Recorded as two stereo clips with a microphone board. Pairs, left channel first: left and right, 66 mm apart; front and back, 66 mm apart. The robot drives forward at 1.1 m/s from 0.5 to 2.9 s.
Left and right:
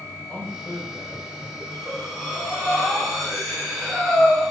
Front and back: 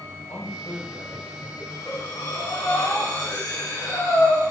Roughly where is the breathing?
Ahead.